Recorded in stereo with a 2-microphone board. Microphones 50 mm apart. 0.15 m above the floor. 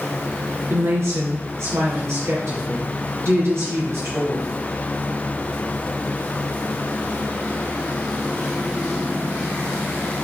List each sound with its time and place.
0.7 s a woman speaking: 60° right (ahead or behind), 3 m